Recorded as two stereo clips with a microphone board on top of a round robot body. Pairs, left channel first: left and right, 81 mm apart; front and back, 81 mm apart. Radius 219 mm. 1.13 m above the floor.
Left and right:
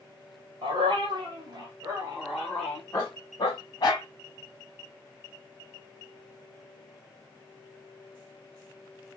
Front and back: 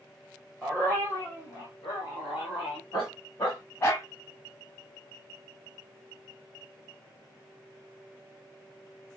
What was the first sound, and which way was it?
A dog barking, 75° right.